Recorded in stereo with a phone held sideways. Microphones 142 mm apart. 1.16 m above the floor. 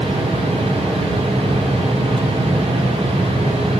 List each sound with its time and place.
0.0 s a fan: 40° right (ahead or behind), 1.8 m